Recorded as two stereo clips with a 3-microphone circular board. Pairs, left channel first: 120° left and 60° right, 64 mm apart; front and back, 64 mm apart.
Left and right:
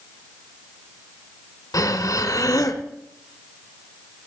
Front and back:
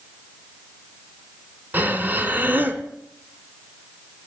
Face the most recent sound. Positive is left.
turn(degrees=120)